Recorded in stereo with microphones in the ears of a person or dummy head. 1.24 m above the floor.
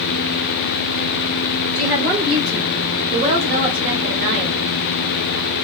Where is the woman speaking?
25° right (ahead or behind), 3.5 m; by 4.6 s 55° right (ahead or behind), 1.9 m.